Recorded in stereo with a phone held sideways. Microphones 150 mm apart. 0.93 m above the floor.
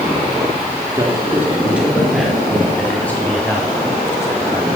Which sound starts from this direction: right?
A man speaking, at 0.9 s.